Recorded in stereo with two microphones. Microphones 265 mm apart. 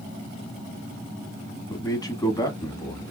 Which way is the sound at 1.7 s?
15° left (ahead or behind).